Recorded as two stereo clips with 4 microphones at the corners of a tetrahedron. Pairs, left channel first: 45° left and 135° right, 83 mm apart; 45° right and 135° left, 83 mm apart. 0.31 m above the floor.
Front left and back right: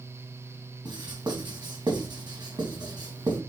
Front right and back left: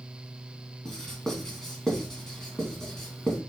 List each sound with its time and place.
0.8 s writing: 130° right, 2.5 m